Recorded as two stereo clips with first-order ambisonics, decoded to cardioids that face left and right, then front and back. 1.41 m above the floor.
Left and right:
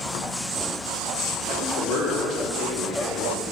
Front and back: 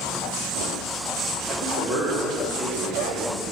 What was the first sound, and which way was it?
A man speaking, 125° left.